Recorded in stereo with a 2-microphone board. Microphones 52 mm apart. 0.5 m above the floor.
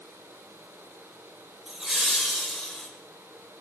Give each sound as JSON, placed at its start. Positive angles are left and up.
{"t": 1.7, "sound": "laughter", "side_deg": -10, "distance_m": 1.8}